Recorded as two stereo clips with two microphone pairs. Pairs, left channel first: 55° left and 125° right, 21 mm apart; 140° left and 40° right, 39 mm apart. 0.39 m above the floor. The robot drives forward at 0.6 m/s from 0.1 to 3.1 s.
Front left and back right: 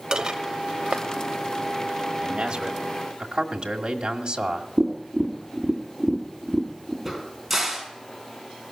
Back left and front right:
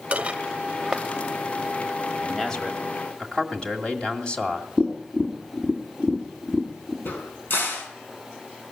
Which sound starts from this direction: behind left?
A crack, at 7.0 s.